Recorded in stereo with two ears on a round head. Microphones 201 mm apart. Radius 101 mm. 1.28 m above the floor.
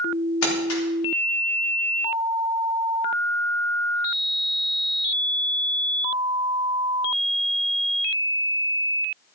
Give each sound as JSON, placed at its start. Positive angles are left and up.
{"t": 0.4, "sound": "crumpling", "side_deg": 80, "distance_m": 4.0}